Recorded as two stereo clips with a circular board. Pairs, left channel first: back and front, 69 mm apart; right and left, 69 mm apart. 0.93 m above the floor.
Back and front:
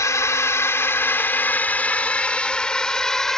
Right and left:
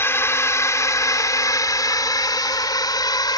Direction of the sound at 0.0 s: 140° right.